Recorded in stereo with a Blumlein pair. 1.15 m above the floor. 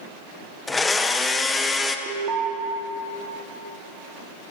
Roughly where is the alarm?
Ahead right.